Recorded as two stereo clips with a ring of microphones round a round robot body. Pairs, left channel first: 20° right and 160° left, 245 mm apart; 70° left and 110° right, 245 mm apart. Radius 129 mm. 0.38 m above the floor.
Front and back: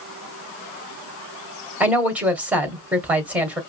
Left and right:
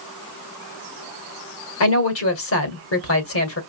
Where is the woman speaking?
75° left, 1.8 m.